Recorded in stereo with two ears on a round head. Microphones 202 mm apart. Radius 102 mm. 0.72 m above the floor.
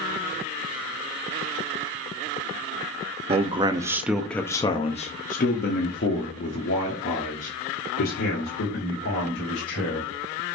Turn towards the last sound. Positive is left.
turn(degrees=60)  # may be behind; listen again after turning